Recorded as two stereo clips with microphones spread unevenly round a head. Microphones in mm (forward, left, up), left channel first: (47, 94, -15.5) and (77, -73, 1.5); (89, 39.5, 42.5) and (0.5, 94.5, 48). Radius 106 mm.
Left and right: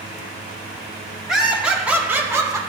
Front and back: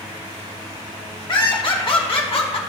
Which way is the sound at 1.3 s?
10° left.